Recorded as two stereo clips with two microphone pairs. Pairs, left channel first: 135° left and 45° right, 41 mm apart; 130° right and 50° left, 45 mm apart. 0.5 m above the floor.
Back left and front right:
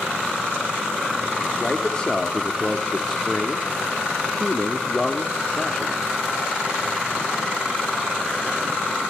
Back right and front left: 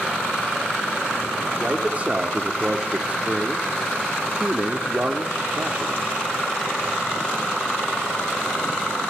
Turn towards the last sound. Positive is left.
turn(degrees=75)